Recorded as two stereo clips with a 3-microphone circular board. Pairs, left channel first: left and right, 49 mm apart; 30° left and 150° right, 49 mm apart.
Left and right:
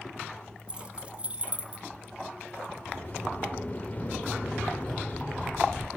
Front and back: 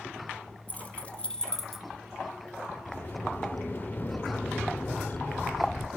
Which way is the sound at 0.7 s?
25° right.